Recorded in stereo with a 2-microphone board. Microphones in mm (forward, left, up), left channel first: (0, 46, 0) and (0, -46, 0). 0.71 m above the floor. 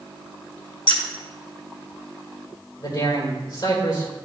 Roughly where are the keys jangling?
Left.